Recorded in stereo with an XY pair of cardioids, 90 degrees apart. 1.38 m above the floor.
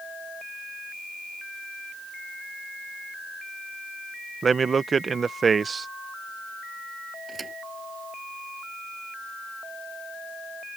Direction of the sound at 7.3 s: 35° right.